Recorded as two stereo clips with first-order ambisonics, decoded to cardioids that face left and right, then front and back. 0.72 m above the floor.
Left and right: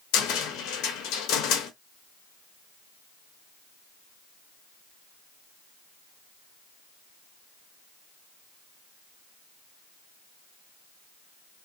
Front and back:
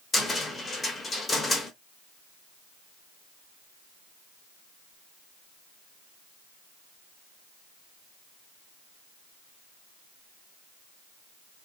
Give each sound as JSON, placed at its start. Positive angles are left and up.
{"t": 0.1, "sound": "a cupboard door", "azimuth_deg": 75, "distance_m": 0.7}